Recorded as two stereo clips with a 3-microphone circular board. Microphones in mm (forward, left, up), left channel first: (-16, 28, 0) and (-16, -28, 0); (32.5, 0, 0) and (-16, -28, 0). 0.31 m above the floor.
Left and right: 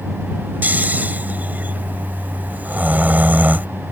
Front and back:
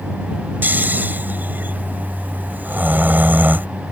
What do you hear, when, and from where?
0.6 s snoring: 125° right